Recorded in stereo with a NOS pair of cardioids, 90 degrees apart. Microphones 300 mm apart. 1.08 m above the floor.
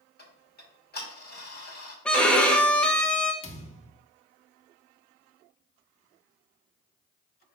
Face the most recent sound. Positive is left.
turn(degrees=20)